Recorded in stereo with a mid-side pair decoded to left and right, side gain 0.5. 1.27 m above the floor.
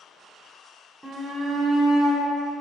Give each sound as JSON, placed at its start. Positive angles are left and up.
{"t": 1.0, "sound": "a shout", "azimuth_deg": -10, "distance_m": 0.5}